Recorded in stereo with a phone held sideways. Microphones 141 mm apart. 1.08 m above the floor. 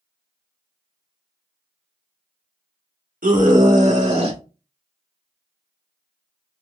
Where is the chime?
No chime in this recording.